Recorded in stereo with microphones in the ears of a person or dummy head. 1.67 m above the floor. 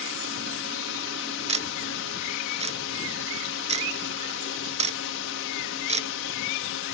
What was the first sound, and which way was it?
A drone, 65° left (ahead or behind).